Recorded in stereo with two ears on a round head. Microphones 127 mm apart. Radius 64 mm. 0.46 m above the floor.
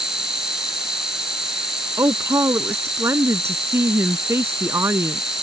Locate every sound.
0.0 s an insect: 5° right (ahead or behind)
2.0 s a woman speaking: 15° right (ahead or behind)